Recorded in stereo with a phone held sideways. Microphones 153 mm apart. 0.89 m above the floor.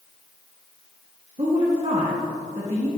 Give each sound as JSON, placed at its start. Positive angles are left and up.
{"t": 1.4, "sound": "a woman speaking", "side_deg": -45, "distance_m": 1.3}